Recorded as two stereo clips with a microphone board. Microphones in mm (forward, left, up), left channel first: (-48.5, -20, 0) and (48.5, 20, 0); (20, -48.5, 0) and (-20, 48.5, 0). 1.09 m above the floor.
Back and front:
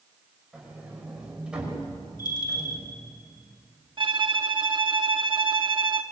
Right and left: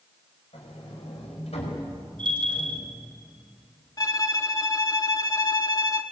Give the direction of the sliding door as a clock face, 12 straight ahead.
2 o'clock.